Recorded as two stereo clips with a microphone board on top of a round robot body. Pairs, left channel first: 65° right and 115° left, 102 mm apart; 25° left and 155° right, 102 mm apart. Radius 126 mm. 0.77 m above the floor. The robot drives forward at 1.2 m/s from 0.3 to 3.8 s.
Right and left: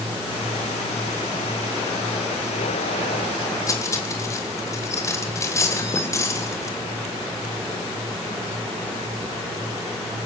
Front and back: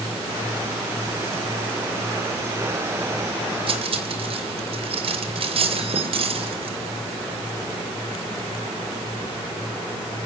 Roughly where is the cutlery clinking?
Behind right.